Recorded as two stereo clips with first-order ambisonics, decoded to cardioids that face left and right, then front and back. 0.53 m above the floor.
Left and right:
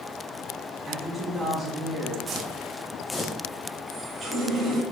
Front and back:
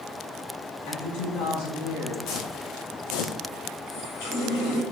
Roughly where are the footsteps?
Ahead right.